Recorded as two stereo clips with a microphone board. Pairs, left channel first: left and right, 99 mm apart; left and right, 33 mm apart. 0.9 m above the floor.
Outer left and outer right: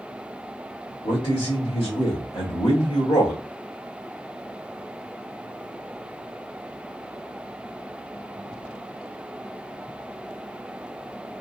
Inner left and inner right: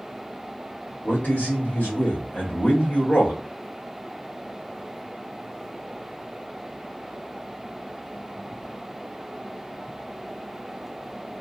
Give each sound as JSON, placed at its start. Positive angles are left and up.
{"t": 1.0, "sound": "a man speaking", "side_deg": 60, "distance_m": 1.6}